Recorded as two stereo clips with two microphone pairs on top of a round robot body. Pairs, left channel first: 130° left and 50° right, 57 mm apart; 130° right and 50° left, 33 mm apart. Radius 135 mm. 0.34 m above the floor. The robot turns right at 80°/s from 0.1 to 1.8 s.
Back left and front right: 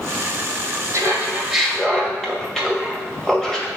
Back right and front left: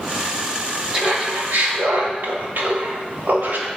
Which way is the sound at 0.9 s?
10° right.